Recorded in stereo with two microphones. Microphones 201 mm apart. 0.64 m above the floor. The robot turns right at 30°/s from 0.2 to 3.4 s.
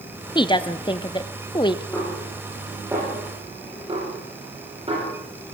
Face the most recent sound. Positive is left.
turn(degrees=-30)  # may be behind; listen again after turning